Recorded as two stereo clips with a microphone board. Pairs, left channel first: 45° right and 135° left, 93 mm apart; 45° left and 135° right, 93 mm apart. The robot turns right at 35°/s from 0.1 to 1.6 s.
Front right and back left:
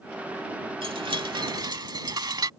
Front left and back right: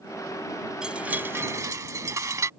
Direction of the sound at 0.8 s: 145° left.